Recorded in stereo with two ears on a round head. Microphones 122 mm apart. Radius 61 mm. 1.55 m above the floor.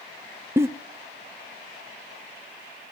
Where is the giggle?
20° right (ahead or behind), 0.9 m.